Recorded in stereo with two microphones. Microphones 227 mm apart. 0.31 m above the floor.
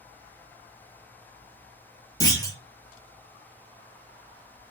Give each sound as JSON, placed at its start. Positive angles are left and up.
{"t": 2.2, "sound": "a clunk", "side_deg": 15, "distance_m": 0.8}